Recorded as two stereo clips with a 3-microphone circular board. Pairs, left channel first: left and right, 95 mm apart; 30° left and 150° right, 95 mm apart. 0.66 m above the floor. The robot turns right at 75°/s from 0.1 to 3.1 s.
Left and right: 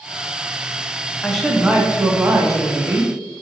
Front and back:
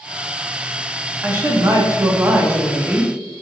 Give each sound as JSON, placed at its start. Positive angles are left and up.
{"t": 1.2, "sound": "a woman speaking", "azimuth_deg": 165, "distance_m": 0.5}